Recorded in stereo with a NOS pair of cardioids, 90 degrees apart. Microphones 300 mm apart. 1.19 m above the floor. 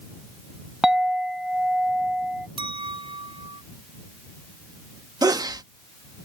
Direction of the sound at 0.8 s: Straight ahead.